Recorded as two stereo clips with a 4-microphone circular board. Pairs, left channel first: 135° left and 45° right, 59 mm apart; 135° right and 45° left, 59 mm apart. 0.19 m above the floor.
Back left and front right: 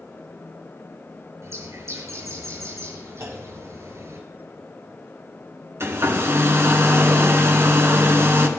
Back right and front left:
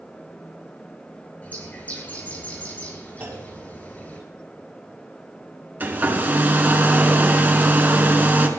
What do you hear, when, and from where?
1.4 s a bird: 75° right, 4 m
3.2 s a clunk: 10° right, 4 m
5.8 s a hair dryer: 10° right, 1.5 m